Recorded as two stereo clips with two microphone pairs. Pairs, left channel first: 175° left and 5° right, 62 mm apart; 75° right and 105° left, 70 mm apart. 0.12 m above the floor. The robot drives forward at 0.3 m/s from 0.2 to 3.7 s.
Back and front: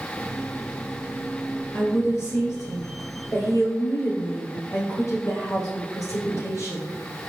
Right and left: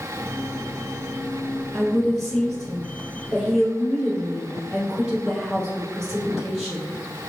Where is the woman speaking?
160° right, 2 m; by 6.9 s 165° right, 2.5 m.